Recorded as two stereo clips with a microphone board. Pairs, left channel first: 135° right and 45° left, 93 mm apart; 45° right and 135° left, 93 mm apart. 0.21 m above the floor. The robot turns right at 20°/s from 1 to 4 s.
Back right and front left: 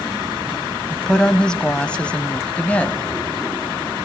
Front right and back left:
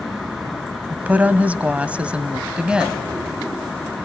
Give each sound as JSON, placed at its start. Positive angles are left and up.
{"t": 0.9, "sound": "a woman speaking", "azimuth_deg": 155, "distance_m": 0.9}